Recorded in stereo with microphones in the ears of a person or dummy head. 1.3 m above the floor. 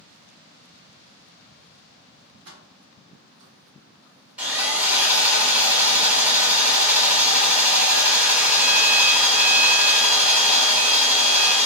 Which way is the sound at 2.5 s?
70° right (ahead or behind).